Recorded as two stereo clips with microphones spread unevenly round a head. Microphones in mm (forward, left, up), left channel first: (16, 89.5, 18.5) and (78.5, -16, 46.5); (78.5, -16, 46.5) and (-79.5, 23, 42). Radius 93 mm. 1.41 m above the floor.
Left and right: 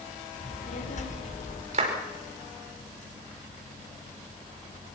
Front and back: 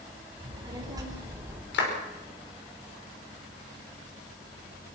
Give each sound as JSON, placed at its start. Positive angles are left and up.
{"t": 0.4, "sound": "a child speaking", "azimuth_deg": 105, "distance_m": 5.0}
{"t": 1.7, "sound": "a clap", "azimuth_deg": -30, "distance_m": 5.0}